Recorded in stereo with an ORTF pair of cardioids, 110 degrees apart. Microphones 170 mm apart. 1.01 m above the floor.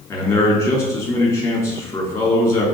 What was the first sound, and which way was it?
A man speaking, 15° left.